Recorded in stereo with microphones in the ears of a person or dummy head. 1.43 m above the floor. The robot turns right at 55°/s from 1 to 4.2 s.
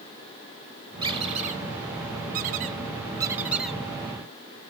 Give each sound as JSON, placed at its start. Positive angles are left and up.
{"t": 1.0, "sound": "a squeak", "side_deg": -20, "distance_m": 1.2}